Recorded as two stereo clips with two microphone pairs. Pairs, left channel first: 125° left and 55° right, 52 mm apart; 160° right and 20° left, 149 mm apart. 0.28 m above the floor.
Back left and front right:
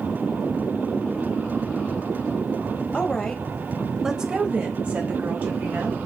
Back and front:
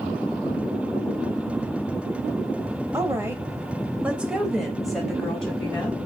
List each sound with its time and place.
2.9 s a woman speaking: 75° left, 1.2 m; by 6.0 s 80° right, 1.8 m